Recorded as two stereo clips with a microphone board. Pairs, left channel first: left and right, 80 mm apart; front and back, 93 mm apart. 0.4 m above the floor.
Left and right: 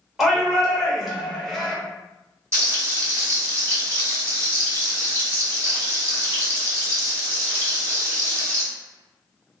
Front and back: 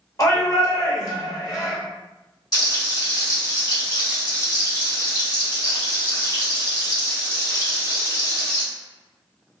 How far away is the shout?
About 1.3 m.